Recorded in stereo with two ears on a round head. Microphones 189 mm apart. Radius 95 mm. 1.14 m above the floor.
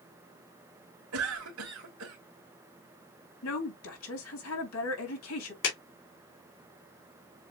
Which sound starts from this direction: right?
A cough, at 1.1 s.